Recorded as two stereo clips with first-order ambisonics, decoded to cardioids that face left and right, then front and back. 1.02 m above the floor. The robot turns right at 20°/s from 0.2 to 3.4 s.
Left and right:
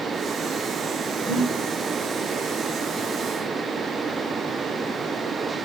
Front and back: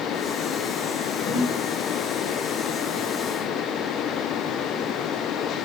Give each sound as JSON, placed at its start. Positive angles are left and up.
{"t": 1.2, "sound": "breathing", "azimuth_deg": -25, "distance_m": 0.7}